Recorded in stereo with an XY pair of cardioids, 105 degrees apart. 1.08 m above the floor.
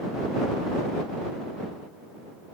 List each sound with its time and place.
Only background noise.